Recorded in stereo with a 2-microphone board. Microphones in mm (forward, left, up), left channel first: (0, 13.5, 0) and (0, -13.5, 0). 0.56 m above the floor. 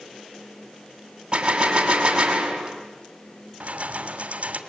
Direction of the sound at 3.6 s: 55° right (ahead or behind).